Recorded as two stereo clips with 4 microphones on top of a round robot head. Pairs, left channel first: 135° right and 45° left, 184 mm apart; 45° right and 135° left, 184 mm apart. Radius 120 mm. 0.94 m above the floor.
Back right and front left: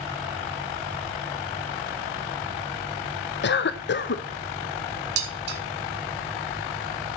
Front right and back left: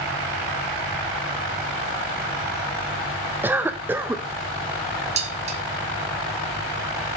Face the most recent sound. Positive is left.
turn(degrees=80)